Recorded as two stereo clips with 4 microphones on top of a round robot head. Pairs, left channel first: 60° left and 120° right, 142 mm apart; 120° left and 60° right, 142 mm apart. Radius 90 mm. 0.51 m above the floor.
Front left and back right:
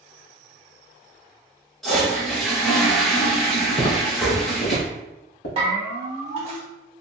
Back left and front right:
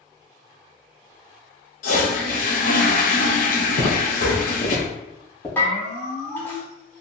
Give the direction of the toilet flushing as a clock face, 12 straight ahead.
7 o'clock.